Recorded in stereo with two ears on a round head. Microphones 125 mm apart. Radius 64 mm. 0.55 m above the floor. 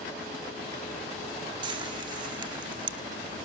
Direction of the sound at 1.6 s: 35° right (ahead or behind).